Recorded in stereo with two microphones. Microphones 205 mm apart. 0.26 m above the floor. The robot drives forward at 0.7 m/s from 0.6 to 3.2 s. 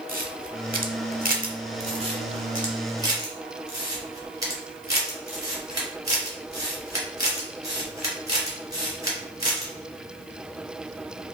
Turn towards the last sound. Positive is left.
turn(degrees=-20)  # may be behind; listen again after turning